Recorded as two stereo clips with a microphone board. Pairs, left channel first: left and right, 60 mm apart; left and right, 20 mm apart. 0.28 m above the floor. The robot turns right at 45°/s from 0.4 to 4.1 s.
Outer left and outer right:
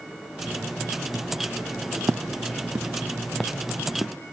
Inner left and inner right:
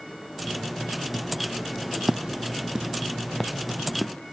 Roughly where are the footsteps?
Right.